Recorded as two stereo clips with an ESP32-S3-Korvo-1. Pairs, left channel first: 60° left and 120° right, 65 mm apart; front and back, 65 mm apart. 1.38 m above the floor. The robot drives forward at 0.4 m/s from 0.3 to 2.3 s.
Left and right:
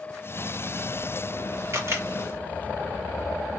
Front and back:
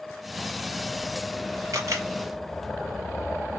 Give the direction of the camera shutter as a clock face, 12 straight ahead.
5 o'clock.